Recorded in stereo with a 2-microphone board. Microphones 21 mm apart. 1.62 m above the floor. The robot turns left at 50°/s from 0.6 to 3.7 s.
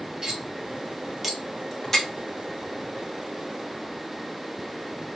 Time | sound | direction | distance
0.2 | cutlery clinking | 35° right (ahead or behind) | 1.0 m